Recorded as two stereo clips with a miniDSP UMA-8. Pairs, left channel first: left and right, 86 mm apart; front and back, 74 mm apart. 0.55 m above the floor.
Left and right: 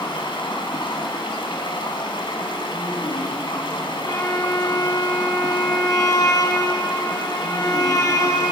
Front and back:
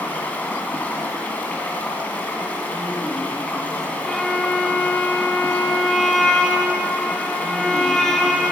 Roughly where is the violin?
Left.